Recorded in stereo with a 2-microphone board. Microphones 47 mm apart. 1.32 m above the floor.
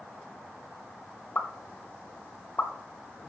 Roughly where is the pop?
Left.